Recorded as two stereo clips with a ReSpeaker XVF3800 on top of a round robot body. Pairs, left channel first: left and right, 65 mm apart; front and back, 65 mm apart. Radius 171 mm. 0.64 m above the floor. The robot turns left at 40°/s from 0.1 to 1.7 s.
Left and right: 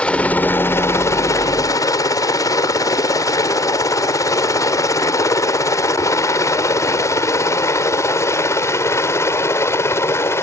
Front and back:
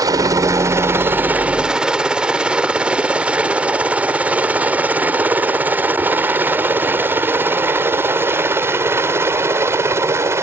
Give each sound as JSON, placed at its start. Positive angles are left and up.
{"t": 0.0, "sound": "a helicopter", "azimuth_deg": 160}